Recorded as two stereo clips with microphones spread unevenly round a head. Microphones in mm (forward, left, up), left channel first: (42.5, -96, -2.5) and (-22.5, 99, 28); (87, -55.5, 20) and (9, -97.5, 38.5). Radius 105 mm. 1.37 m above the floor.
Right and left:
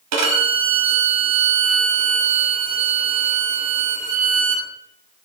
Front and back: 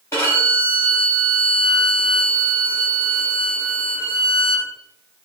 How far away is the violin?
About 1.1 m.